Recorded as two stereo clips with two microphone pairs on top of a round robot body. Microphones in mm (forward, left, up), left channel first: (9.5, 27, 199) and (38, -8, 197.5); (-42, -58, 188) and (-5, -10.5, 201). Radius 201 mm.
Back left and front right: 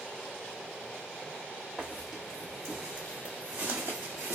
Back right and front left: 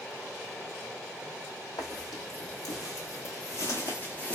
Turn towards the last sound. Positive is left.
turn(degrees=-55)